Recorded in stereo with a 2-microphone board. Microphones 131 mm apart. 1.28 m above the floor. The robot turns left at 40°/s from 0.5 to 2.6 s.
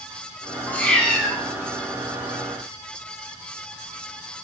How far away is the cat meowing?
About 1.3 m.